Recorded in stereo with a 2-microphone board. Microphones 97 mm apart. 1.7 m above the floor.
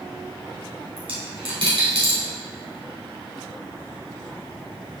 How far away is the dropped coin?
About 3 m.